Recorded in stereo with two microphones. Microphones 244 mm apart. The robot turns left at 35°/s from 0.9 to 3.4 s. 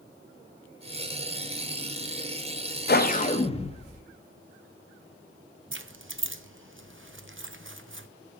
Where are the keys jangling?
55° right (ahead or behind), 0.6 m.